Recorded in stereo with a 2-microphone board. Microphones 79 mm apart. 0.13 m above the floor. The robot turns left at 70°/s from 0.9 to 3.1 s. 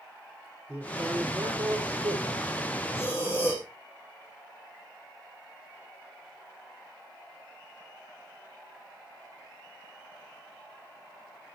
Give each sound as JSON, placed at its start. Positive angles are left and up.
{"t": 0.7, "sound": "a man speaking", "azimuth_deg": -20, "distance_m": 5.5}
{"t": 3.0, "sound": "breathing", "side_deg": 30, "distance_m": 8.0}